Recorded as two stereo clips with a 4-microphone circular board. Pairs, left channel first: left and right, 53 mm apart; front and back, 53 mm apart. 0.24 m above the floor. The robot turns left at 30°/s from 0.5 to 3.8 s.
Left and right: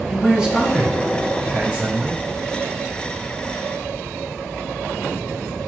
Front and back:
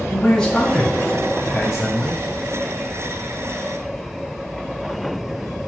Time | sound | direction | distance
0.1 | a man speaking | 55° right | 1.4 m